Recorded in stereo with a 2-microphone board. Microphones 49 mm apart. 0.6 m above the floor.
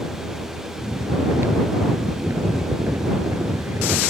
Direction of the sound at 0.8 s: 70° right (ahead or behind).